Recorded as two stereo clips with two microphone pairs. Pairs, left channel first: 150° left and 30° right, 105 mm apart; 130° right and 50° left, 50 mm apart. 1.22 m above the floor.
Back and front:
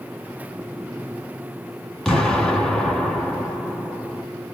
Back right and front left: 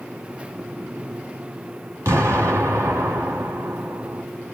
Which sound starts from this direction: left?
An explosion, at 2.0 s.